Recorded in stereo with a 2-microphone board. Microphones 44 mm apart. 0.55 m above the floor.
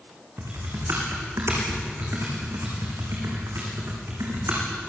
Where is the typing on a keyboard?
85° right, 7 m.